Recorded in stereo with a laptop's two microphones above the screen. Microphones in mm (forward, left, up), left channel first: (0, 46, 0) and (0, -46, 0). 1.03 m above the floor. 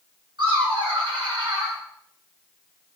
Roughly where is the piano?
No piano in this recording.